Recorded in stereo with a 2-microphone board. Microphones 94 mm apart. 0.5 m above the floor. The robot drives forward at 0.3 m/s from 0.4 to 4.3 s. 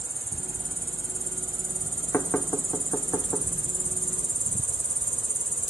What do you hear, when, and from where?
0.0 s an insect: 30° left (ahead or behind), 1.7 m; by 5.7 s 65° left (ahead or behind), 1.0 m
2.1 s knocking: 25° left (ahead or behind), 0.9 m; by 3.5 s 20° left (ahead or behind), 1.2 m